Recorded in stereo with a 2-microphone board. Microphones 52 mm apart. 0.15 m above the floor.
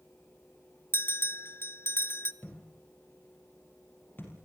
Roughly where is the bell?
Left.